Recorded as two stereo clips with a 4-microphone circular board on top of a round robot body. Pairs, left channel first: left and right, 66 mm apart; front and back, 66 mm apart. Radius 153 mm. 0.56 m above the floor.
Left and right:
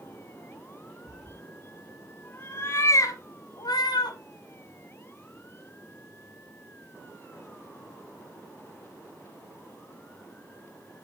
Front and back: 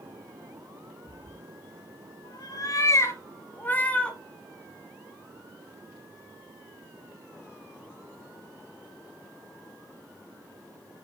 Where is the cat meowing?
Straight ahead, 2 m; by 4.2 s 80° left, 1.8 m.